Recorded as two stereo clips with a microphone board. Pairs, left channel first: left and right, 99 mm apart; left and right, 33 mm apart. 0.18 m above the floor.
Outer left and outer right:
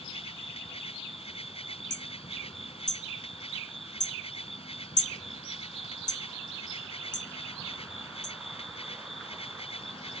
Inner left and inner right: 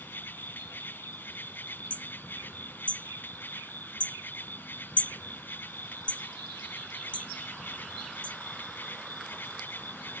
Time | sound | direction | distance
0.0 | an insect | 80° left | ?
1.9 | hammering | 45° left (ahead or behind) | ?